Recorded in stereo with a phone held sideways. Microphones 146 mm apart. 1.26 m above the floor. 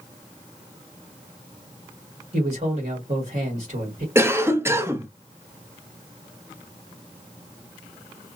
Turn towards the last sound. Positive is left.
turn(degrees=-15)  # may be behind; listen again after turning